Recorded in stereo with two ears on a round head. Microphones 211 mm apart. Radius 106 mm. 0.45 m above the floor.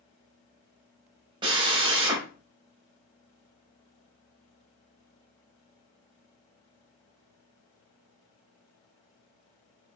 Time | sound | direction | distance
1.4 | a drill | 20° right (ahead or behind) | 0.8 m